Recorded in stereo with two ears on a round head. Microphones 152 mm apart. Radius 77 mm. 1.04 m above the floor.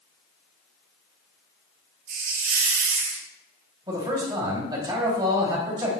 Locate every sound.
2.1 s a hiss: 55° right (ahead or behind), 1.2 m
3.9 s a man speaking: 25° right (ahead or behind), 2.5 m